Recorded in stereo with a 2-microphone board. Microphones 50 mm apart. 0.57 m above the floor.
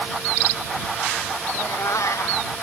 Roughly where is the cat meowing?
Left.